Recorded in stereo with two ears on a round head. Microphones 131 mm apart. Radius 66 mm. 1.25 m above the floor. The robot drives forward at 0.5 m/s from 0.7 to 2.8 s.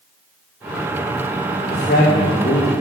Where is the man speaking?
55° left (ahead or behind), 2.5 m; by 2.7 s 70° left (ahead or behind), 2 m.